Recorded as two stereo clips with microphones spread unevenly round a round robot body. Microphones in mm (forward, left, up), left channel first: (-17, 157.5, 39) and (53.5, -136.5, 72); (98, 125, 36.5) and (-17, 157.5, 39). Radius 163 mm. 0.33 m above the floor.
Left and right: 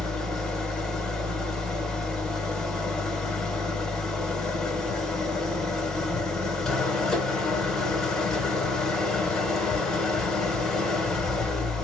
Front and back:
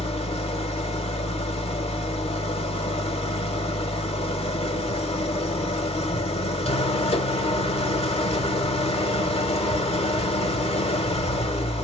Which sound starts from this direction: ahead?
An engine running, at 0.0 s.